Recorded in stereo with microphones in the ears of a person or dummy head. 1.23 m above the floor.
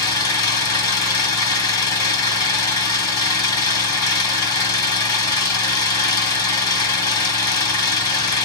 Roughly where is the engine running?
Left.